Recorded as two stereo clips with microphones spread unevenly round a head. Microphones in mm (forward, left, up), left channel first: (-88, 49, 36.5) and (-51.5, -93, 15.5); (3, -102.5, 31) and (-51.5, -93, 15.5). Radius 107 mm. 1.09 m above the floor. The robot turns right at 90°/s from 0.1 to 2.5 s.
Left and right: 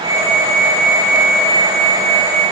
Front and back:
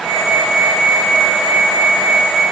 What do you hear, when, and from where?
Only background noise.